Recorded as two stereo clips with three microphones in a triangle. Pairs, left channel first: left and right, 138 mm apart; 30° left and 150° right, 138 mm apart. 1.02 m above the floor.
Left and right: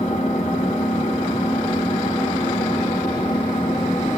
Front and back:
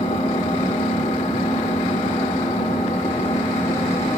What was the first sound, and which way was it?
An engine running, 70° left.